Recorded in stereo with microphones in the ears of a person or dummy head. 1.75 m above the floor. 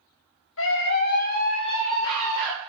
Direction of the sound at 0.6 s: 80° left.